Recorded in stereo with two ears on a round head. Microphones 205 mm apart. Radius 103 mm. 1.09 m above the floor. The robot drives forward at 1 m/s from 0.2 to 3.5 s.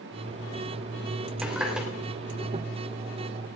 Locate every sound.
1.4 s a running tap: 5° right (ahead or behind), 3 m